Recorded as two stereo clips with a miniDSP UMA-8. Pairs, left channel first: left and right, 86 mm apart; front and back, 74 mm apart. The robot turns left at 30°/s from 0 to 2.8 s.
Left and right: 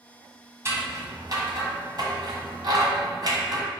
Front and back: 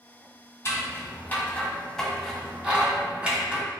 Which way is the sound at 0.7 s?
40° right.